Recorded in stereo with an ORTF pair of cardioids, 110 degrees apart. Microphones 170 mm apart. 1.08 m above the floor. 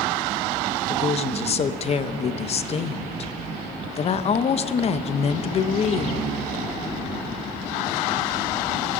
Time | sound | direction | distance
0.9 | a woman speaking | 35° left | 0.6 m